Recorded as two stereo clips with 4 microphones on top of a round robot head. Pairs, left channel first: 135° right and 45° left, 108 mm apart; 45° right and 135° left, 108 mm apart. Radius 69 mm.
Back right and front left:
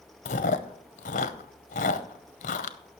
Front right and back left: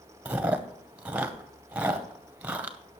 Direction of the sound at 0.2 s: 145° right.